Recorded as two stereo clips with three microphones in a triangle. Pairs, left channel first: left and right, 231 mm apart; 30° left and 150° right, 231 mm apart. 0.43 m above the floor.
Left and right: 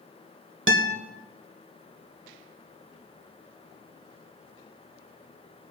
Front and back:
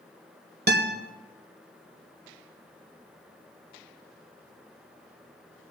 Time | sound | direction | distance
0.7 | a guitar | 110° right | 1.4 m